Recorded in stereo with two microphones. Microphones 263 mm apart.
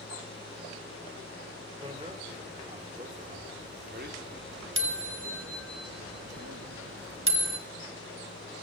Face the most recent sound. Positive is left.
turn(degrees=-45)  # may be behind; listen again after turning